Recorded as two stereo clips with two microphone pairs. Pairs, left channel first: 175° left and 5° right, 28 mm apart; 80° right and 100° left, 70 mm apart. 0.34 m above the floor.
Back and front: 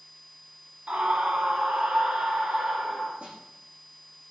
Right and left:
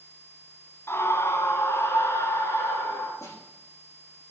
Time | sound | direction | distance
0.9 | a scream | 35° right | 1.8 m
3.2 | a snare drum | 35° right | 8.5 m